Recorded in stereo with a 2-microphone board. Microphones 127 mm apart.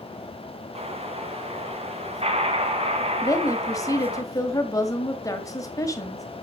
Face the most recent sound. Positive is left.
turn(degrees=25)  # may be behind; listen again after turning